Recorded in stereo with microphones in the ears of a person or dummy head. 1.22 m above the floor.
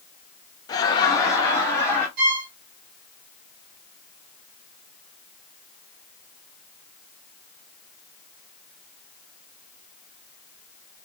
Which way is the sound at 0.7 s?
20° left (ahead or behind).